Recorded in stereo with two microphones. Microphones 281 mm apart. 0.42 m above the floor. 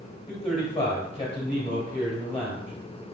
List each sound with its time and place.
0.3 s a man speaking: 20° left (ahead or behind), 1.4 m